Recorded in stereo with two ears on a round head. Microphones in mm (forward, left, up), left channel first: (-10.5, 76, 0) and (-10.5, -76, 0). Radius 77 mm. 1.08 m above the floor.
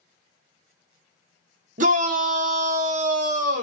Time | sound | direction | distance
1.8 | a shout | 50° right (ahead or behind) | 0.9 m